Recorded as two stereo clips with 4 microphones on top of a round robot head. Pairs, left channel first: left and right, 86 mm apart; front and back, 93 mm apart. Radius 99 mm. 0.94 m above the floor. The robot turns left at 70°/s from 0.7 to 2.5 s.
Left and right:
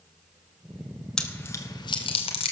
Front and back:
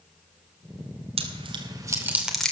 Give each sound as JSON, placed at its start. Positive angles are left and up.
{"t": 1.2, "sound": "chewing", "azimuth_deg": 175, "distance_m": 2.5}